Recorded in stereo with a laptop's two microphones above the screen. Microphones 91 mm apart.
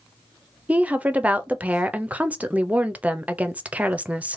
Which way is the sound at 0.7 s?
15° right (ahead or behind).